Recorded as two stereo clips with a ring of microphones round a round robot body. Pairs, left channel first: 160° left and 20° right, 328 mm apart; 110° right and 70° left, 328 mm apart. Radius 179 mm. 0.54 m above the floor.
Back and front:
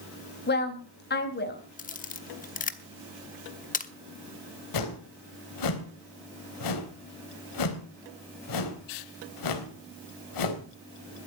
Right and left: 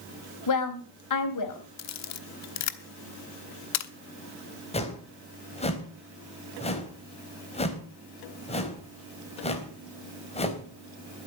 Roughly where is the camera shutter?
Behind right.